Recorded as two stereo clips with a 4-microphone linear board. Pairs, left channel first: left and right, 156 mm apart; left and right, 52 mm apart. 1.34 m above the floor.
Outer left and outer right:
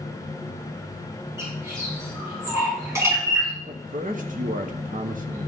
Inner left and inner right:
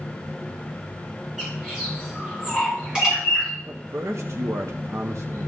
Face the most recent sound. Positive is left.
turn(degrees=-60)  # may be behind; listen again after turning